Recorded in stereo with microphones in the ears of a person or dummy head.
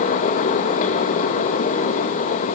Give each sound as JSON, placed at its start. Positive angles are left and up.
{"t": 0.0, "sound": "a fan", "side_deg": 50, "distance_m": 1.2}